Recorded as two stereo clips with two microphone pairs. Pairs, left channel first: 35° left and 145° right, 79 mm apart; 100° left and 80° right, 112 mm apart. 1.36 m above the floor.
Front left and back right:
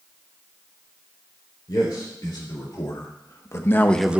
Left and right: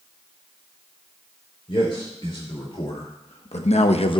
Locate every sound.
1.7 s a man speaking: 65° left, 4 m; by 4.2 s 145° left, 0.6 m